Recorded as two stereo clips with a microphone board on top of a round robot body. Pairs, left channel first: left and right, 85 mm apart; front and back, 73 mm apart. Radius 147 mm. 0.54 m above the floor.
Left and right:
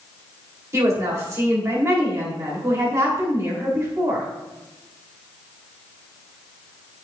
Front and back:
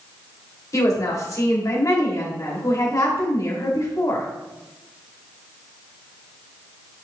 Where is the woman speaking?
40° right, 3 m.